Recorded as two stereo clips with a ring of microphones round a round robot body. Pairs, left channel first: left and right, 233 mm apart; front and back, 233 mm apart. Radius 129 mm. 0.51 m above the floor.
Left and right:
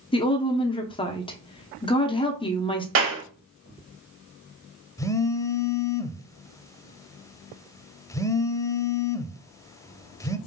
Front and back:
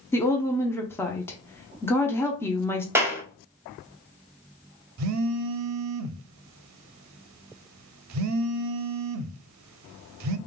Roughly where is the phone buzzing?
Behind.